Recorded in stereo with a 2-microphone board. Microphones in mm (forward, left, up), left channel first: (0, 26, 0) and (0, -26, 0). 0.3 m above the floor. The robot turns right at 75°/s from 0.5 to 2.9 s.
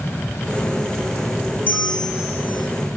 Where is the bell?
145° left, 2.5 m; by 2.7 s 140° right, 2.5 m.